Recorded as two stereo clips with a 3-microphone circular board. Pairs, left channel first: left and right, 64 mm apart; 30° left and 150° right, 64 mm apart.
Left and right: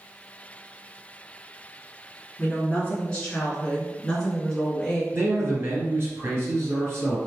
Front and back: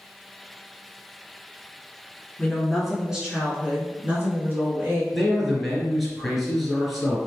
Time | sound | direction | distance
2.4 | a woman speaking | 100° left | 1.1 m
5.1 | a man speaking | 65° right | 1.5 m